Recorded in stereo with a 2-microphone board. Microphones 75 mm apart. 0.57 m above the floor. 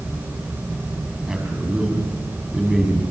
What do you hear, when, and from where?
1.3 s a man speaking: 5° right (ahead or behind), 5.5 m